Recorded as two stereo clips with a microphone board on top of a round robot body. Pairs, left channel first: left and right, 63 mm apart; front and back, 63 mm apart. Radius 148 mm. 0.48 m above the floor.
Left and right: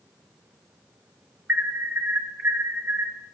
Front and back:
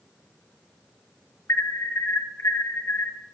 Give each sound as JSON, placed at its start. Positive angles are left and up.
{"t": 1.5, "sound": "an alarm", "azimuth_deg": -40, "distance_m": 1.8}